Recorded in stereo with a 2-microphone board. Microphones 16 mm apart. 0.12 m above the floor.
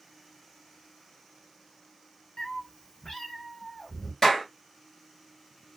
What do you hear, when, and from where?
2.4 s a cat meowing: 55° left (ahead or behind), 0.7 m; by 4.1 s 25° left (ahead or behind), 1.7 m
4.2 s a clap: 20° left (ahead or behind), 1.7 m